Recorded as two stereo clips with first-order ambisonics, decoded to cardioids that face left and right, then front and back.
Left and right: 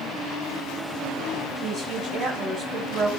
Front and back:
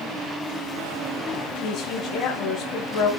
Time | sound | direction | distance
1.6 | a woman speaking | 35° right | 2.5 m